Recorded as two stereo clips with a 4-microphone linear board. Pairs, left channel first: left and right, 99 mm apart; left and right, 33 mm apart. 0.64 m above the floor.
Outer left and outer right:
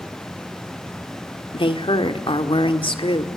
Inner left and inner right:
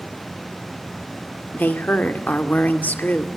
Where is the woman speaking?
60° left (ahead or behind), 2 m.